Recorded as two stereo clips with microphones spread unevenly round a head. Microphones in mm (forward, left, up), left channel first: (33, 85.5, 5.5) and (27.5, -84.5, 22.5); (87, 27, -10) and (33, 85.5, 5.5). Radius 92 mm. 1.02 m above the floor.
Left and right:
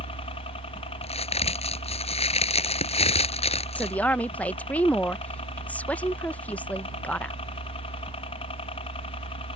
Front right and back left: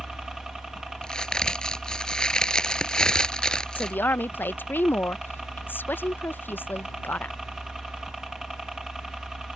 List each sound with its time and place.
0.0 s a helicopter: 45° left
1.0 s a crack: 35° left
3.8 s a woman speaking: 10° left